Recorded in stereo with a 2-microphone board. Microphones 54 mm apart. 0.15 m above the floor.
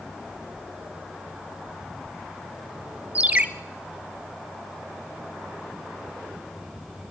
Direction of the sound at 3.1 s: 25° right (ahead or behind).